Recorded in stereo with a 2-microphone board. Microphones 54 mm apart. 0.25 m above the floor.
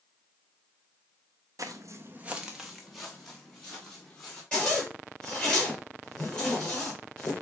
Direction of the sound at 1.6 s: 80° right.